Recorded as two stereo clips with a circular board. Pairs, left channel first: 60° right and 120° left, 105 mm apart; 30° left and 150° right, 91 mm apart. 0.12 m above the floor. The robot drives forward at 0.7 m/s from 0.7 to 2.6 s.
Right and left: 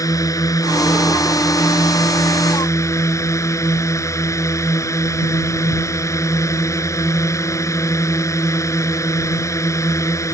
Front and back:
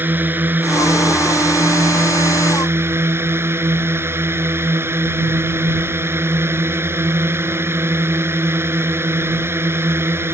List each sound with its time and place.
0.0 s a drone: 95° right; by 10.3 s 100° right